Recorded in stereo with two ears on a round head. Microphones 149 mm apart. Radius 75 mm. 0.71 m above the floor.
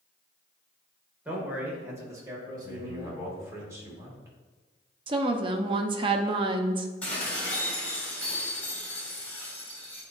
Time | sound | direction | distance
1.2 | a man speaking | 10° right (ahead or behind) | 2 m
2.6 | a man speaking | 15° right (ahead or behind) | 2.5 m
5.1 | a woman speaking | 30° right (ahead or behind) | 0.7 m
7.0 | dishes clattering | 10° left (ahead or behind) | 3 m